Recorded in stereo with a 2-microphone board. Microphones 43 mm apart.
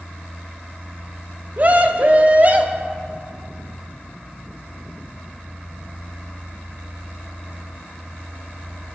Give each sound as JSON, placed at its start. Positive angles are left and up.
{"t": 1.6, "sound": "a scream", "side_deg": -40, "distance_m": 1.0}